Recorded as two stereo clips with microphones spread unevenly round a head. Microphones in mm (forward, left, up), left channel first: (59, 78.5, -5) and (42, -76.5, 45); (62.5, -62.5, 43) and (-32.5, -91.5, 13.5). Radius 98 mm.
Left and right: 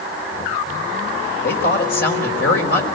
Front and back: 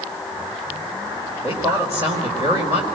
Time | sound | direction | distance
1.4 | a woman speaking | 120° left | 4.5 m